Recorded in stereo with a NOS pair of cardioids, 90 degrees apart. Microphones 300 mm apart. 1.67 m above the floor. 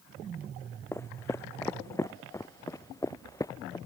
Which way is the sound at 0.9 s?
10° left.